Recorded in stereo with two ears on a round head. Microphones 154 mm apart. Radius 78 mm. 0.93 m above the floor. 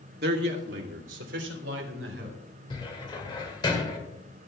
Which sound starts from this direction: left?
A cupboard door, at 2.7 s.